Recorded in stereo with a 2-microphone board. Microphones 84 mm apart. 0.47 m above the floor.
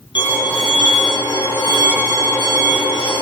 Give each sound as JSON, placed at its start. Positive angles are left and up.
{"t": 0.1, "sound": "a violin", "side_deg": 65, "distance_m": 7.0}